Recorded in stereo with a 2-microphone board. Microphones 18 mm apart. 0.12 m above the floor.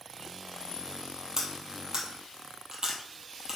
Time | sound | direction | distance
1.4 | cutlery clinking | 30° right (ahead or behind) | 2 m